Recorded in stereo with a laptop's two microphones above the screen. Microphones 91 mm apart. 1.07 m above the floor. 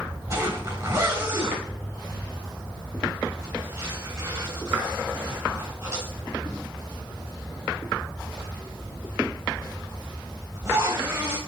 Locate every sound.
0.3 s a zipper: 35° right (ahead or behind), 3 m